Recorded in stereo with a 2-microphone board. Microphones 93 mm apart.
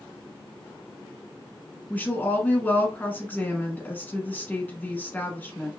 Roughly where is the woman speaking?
Centre.